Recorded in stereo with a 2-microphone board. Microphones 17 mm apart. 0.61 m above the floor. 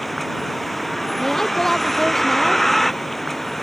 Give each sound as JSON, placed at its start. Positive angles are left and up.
{"t": 0.0, "sound": "a vehicle", "side_deg": 10}
{"t": 1.2, "sound": "a woman speaking", "side_deg": 25}